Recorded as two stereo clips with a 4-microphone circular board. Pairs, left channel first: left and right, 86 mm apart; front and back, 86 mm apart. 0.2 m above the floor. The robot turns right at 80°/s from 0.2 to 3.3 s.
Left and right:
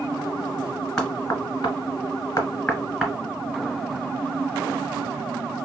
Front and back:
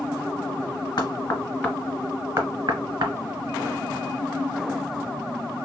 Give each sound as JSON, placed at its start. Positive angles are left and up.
{"t": 1.0, "sound": "knocking", "azimuth_deg": 10, "distance_m": 1.5}